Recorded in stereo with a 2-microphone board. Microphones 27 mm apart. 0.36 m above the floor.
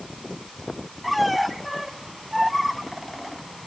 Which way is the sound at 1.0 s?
Centre (ahead or behind).